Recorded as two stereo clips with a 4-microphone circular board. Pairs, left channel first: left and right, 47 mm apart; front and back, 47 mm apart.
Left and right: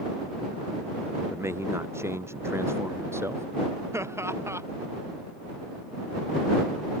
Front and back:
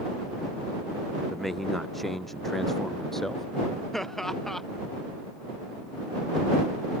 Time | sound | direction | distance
1.3 | a man speaking | 90° right | ?
3.9 | laughter | 85° right | ?